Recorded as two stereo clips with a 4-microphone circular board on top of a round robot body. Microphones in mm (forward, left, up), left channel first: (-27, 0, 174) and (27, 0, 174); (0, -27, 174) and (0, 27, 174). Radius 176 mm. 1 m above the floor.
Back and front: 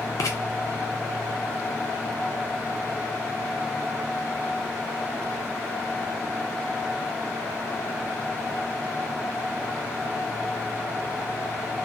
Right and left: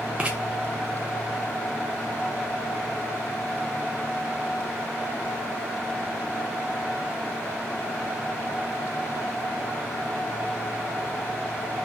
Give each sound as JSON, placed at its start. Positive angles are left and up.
{"t": 0.2, "sound": "writing", "azimuth_deg": 160, "distance_m": 0.6}